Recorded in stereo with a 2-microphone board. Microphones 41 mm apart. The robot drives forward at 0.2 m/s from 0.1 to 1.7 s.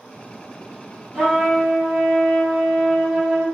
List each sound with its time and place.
1.1 s a trumpet: 10° right (ahead or behind), 1.1 m